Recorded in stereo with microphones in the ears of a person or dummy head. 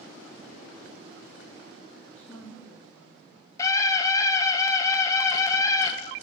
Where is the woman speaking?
5° left (ahead or behind), 5.5 m.